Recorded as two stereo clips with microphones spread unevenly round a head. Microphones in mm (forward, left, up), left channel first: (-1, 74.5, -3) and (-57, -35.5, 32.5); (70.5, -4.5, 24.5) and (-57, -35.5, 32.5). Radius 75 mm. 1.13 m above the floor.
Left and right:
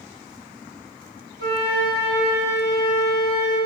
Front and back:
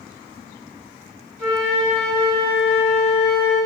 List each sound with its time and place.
1.4 s a flute: 70° right, 3 m